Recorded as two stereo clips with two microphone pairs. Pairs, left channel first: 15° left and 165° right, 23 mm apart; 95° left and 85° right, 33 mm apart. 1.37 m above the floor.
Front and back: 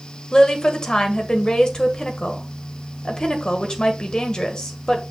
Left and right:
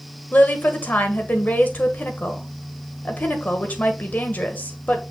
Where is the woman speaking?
70° left, 1.6 m.